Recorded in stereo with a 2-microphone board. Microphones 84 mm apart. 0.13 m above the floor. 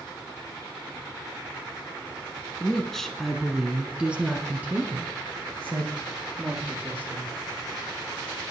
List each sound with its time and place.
2.6 s a woman speaking: 10° left (ahead or behind), 1.1 m; by 7.4 s 25° right (ahead or behind), 2.5 m